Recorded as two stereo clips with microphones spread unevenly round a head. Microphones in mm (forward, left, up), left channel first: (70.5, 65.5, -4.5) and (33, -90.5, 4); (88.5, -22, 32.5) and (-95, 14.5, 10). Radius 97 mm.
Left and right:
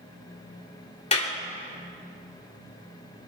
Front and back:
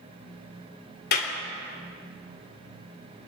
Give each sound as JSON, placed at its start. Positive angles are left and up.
{"t": 1.1, "sound": "a clap", "azimuth_deg": 25, "distance_m": 3.0}